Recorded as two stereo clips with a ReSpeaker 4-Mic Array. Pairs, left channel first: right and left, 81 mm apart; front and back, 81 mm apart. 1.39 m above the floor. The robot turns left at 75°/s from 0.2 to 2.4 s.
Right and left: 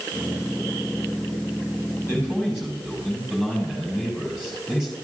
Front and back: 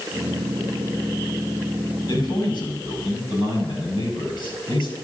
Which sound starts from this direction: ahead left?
A man speaking, at 2.0 s.